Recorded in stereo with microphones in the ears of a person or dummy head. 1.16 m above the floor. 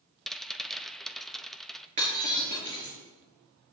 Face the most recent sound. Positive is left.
turn(degrees=-40)  # may be behind; listen again after turning